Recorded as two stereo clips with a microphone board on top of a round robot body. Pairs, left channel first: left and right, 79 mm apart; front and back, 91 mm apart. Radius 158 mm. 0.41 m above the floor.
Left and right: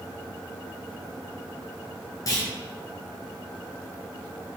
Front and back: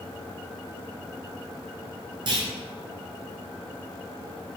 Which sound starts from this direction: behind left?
A clunk, at 2.3 s.